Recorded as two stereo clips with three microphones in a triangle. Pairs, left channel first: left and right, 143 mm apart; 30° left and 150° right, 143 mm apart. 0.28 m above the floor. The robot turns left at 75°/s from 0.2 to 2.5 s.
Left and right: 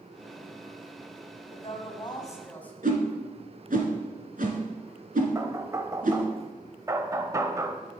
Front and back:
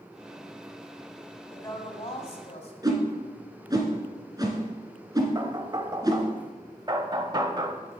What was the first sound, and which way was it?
A woman speaking, 90° left.